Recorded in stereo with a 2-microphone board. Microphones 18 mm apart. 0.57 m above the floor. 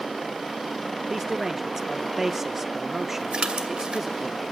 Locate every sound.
1.1 s a man speaking: 15° right (ahead or behind), 1.0 m
3.3 s a splash: 60° right (ahead or behind), 2 m